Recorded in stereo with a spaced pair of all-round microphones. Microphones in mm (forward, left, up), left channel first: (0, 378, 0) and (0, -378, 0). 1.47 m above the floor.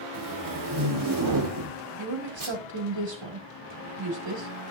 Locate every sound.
0.1 s tape being pulled: 40° right (ahead or behind), 1.8 m
2.0 s a woman speaking: 35° right (ahead or behind), 3 m